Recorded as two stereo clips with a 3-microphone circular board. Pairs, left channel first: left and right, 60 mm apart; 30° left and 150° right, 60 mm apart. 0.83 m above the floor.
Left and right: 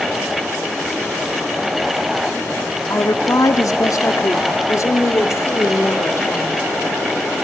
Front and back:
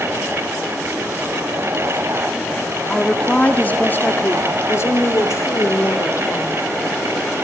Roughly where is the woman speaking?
Left.